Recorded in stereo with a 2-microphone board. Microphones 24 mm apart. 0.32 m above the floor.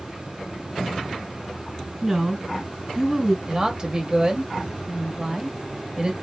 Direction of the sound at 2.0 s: 25° right (ahead or behind).